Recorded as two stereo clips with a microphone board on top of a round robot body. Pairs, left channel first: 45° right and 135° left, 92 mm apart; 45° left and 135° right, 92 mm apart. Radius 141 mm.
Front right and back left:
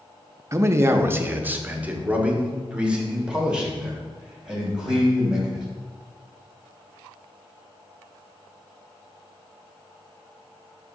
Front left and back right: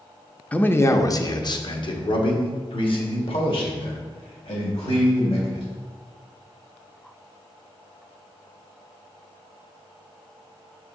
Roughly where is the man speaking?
Left.